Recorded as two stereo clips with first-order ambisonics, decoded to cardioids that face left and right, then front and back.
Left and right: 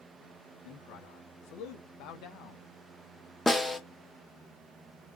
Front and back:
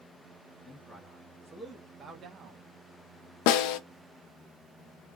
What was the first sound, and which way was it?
A man speaking, 90° left.